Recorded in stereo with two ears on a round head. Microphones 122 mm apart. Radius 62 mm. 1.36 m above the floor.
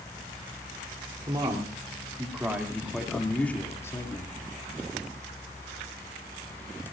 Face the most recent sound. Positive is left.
turn(degrees=30)  # may be behind; listen again after turning